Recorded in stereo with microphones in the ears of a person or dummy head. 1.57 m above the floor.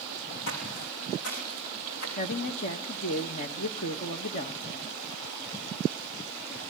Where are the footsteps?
60° left (ahead or behind), 5 m; by 2.1 s 55° left (ahead or behind), 5.5 m.